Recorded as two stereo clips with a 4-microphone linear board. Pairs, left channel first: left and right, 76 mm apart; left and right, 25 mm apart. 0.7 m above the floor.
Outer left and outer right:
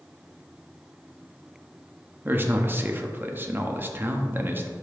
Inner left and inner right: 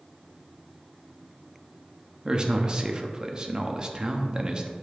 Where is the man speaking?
30° right (ahead or behind), 0.8 m.